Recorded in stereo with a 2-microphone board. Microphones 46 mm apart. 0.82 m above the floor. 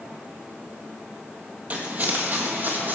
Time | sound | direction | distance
1.7 | footsteps | 35° right (ahead or behind) | 0.9 m